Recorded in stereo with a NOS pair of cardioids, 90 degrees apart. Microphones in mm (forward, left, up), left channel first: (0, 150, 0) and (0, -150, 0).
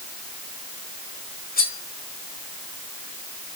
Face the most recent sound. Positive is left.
turn(degrees=30)